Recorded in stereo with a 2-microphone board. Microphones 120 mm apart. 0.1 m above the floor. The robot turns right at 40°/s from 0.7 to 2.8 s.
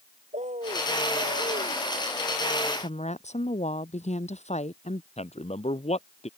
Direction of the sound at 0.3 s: 105° right.